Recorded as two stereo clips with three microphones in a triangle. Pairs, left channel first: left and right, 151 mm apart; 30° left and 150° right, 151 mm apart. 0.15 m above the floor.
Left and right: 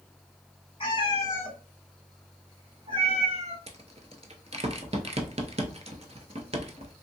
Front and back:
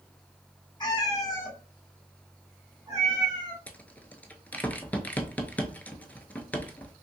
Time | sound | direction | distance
0.8 | a cat meowing | 65° left | 1.0 m
3.7 | a rattle | 50° right | 0.5 m